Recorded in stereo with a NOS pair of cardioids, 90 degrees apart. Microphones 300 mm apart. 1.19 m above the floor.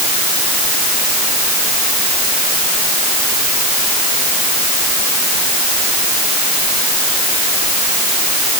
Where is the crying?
I don't hear crying.